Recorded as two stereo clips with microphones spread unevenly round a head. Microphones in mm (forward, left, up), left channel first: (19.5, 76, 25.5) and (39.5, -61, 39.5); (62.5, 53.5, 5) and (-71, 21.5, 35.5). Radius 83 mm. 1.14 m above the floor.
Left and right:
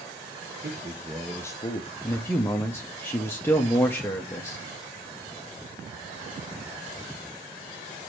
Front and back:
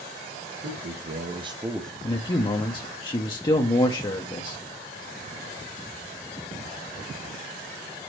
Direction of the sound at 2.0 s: 35° left.